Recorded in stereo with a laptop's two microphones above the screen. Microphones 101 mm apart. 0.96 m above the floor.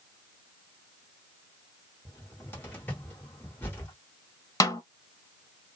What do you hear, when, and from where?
2.0 s a cupboard door: 20° left (ahead or behind), 0.9 m
4.6 s a snare drum: 35° left (ahead or behind), 0.7 m